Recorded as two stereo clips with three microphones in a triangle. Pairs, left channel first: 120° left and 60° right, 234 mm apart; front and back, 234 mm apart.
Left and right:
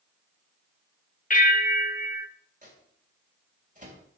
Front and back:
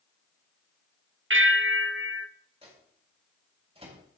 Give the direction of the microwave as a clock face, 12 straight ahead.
4 o'clock.